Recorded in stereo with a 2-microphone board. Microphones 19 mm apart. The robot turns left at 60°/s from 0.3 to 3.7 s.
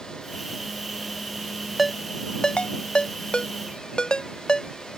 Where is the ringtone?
5° left (ahead or behind); by 4.7 s 50° left (ahead or behind).